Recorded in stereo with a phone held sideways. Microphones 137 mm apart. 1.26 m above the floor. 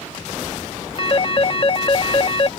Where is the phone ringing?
40° left (ahead or behind).